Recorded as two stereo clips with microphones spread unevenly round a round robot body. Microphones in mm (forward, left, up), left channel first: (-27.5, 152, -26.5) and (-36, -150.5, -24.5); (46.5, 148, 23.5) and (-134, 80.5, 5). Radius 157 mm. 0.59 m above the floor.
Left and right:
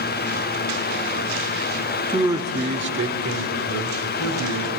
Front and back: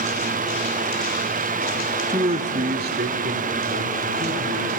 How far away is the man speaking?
About 0.9 m.